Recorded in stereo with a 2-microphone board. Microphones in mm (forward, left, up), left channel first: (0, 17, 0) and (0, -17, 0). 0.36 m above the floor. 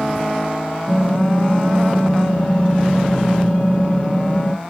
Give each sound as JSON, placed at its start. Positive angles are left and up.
{"t": 0.9, "sound": "typing on a keyboard", "side_deg": 65, "distance_m": 1.5}